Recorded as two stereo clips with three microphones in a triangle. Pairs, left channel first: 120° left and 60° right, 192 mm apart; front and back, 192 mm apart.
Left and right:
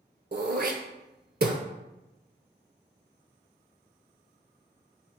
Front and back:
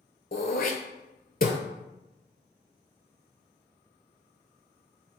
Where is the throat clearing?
35° right, 0.7 m.